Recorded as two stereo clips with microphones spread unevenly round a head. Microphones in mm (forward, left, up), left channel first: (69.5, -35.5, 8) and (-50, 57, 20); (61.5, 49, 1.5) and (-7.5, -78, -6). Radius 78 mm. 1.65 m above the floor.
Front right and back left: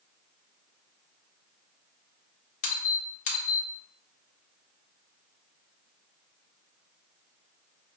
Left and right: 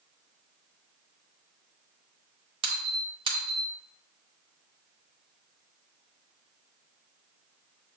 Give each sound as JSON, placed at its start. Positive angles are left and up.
{"t": 2.6, "sound": "a squeak", "azimuth_deg": -75, "distance_m": 1.0}